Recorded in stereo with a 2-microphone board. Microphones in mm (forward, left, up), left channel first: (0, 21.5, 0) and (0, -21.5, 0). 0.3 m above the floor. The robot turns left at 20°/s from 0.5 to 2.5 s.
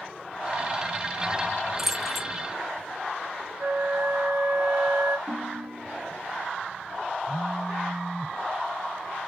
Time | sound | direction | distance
1.8 | keys jangling | centre (ahead or behind) | 1.1 m
3.6 | a flute | 75° right (ahead or behind) | 1.3 m
5.3 | a ringtone | 70° right (ahead or behind) | 1.9 m
7.3 | a phone buzzing | 5° right (ahead or behind) | 0.7 m